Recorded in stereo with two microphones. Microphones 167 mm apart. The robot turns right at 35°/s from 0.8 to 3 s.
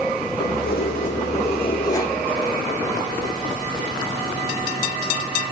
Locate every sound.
0.4 s keys jangling: 120° left, 5.5 m; by 2.2 s 170° left, 5.5 m